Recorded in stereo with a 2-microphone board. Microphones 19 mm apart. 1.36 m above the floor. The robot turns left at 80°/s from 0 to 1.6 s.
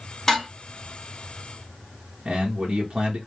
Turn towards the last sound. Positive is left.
turn(degrees=-75)  # may be behind; listen again after turning